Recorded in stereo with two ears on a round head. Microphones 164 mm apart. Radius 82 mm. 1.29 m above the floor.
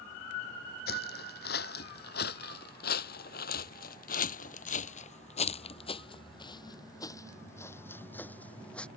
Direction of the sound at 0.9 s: 60° left (ahead or behind).